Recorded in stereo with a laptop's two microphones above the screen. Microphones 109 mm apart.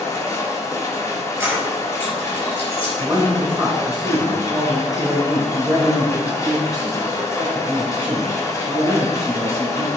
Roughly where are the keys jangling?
Centre.